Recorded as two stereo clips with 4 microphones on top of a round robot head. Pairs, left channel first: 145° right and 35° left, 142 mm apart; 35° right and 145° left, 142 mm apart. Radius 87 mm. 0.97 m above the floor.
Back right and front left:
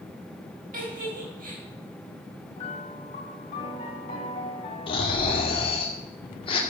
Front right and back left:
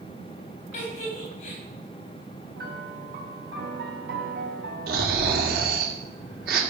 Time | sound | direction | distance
0.7 | a giggle | 5° left | 4.5 m
2.6 | a piano | 165° left | 2 m
4.9 | snoring | 160° left | 2 m